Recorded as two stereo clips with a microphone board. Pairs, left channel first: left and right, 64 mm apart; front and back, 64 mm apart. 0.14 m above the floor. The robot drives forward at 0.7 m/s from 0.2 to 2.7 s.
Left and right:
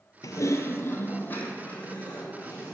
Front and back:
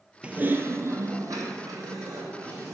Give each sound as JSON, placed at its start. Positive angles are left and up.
{"t": 0.2, "sound": "typing on a keyboard", "azimuth_deg": 110, "distance_m": 0.5}